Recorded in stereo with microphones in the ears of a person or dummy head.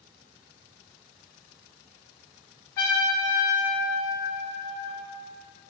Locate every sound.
2.8 s a trumpet: 20° left (ahead or behind), 0.8 m